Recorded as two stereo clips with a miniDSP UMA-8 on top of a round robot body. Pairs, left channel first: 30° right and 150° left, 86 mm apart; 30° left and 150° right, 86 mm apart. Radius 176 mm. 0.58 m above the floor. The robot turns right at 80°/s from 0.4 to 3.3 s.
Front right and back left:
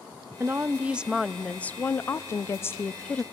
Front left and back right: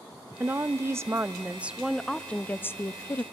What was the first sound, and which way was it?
A woman speaking, 175° left.